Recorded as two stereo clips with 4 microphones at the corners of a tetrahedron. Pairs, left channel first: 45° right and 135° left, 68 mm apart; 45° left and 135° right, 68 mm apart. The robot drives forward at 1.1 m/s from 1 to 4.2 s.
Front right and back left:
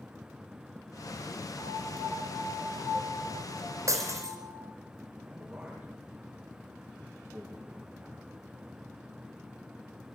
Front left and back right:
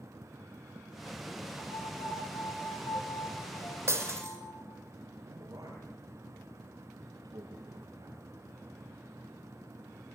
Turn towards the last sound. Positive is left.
turn(degrees=-145)